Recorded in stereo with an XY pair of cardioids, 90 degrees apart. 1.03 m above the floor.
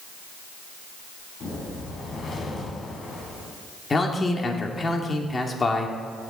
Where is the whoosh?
65° left, 3.5 m.